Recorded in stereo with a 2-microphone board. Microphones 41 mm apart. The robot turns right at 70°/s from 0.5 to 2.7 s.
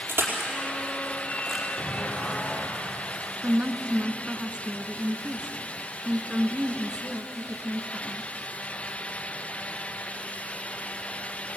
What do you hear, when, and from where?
0.1 s crushing: 65° right (ahead or behind), 4.5 m; by 1.6 s 5° left (ahead or behind), 4.5 m
1.8 s an explosion: 30° left, 9.5 m; by 3.3 s 95° left, 9.5 m
3.4 s a woman speaking: 25° right (ahead or behind), 1.8 m